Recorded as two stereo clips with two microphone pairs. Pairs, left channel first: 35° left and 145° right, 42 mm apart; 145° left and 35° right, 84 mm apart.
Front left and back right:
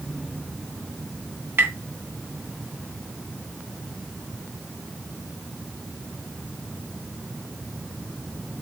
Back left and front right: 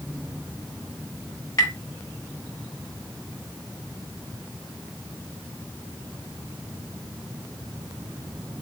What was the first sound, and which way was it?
Tapping, 170° right.